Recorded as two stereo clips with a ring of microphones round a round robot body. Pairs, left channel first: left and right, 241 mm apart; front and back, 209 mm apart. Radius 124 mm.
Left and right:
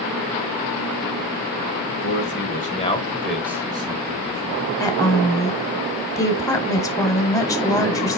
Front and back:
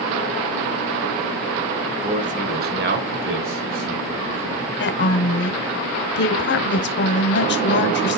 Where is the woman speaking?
15° left, 1.5 m.